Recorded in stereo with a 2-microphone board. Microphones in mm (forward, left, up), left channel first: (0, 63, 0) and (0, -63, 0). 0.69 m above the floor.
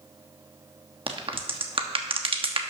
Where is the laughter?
I don't hear laughter.